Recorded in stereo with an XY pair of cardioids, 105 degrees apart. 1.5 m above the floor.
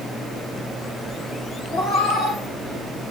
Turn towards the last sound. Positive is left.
turn(degrees=60)